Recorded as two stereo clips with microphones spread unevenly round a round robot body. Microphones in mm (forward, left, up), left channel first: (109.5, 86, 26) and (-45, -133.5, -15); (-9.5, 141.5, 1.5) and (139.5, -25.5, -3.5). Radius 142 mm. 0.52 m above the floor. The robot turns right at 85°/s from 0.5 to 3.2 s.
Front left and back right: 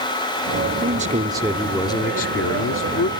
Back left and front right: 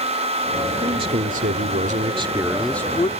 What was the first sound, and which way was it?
A man speaking, 115° right.